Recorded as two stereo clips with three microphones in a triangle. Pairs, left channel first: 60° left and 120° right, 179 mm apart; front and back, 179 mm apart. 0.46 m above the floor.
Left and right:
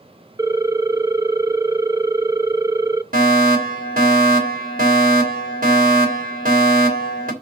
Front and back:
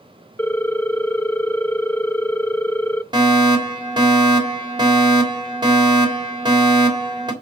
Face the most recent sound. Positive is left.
turn(degrees=-120)